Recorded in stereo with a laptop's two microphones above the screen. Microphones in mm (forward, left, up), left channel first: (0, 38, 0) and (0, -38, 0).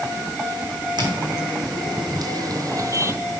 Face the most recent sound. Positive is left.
turn(degrees=-40)  # may be behind; listen again after turning